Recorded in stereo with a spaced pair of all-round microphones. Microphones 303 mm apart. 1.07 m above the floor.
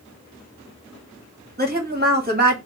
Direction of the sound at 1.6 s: 30° right (ahead or behind).